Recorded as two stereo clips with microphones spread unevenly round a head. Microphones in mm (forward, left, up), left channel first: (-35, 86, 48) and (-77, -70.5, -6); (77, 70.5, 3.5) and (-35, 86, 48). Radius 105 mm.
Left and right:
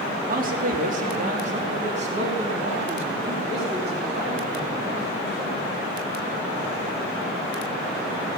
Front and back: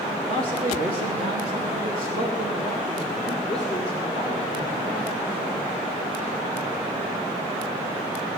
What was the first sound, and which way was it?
A man speaking, 135° right.